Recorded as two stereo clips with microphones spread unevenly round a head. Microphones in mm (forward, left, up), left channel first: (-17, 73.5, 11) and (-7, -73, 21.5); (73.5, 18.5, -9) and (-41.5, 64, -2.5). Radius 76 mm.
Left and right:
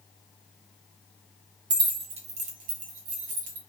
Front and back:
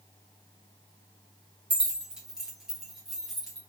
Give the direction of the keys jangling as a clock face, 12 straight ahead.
4 o'clock.